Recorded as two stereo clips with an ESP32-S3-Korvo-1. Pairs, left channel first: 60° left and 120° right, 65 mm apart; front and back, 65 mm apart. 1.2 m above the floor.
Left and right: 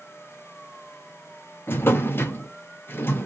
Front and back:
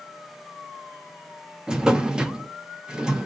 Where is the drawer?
105° left, 0.5 m.